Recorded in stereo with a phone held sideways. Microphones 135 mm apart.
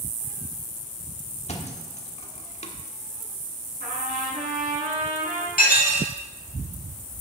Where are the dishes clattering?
70° left (ahead or behind), 2 m.